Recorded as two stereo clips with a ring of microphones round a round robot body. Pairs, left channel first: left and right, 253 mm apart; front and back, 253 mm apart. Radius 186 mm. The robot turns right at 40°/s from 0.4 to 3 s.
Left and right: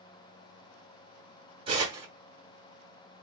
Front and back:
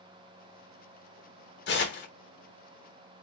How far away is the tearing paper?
About 1.2 m.